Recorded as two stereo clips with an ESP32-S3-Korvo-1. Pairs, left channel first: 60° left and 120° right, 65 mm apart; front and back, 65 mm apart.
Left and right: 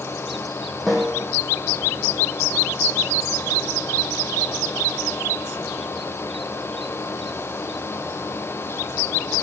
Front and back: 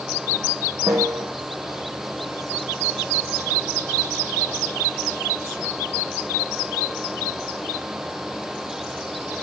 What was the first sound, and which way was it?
A snare drum, 150° left.